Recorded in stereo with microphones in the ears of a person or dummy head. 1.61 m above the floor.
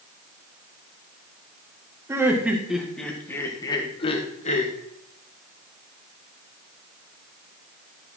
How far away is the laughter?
About 1.8 m.